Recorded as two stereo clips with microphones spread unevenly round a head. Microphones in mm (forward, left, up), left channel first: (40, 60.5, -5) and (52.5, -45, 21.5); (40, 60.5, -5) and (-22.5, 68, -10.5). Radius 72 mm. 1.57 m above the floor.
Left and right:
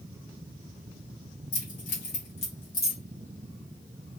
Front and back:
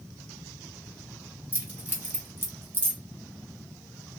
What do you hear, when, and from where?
1.5 s keys jangling: 110° left, 1.4 m; by 3.0 s 175° right, 0.7 m